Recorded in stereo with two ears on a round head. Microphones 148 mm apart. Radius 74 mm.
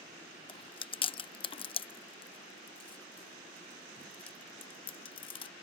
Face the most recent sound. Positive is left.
turn(degrees=30)  # may be behind; listen again after turning